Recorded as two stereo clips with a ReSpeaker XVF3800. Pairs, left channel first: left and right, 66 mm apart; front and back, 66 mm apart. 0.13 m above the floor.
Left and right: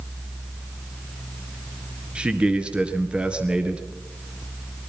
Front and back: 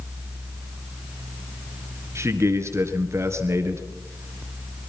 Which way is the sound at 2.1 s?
155° right.